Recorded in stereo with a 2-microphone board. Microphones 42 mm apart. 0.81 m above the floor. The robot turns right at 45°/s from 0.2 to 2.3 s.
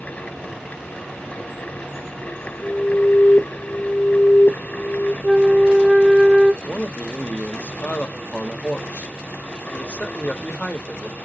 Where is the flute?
5° right (ahead or behind), 0.8 m.